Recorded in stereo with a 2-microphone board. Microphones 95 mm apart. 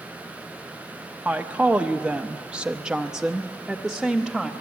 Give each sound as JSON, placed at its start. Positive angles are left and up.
{"t": 1.2, "sound": "a woman speaking", "side_deg": -15, "distance_m": 1.2}